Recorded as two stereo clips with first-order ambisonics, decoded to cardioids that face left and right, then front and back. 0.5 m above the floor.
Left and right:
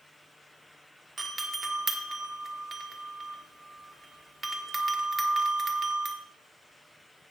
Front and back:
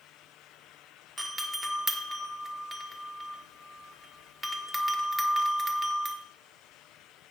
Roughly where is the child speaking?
I don't hear a child speaking.